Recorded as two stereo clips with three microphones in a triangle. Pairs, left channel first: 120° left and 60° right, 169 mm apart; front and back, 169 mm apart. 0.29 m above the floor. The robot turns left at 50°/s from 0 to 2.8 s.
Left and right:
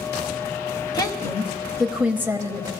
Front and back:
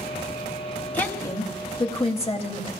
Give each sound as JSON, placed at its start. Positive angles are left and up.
{"t": 0.9, "sound": "a woman speaking", "azimuth_deg": 75, "distance_m": 1.1}